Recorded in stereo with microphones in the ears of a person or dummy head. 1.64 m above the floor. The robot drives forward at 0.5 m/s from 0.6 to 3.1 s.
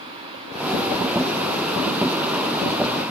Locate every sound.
Only background noise.